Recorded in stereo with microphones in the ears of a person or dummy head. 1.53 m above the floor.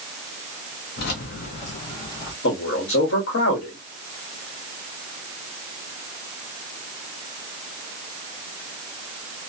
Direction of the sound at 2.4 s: 70° left (ahead or behind).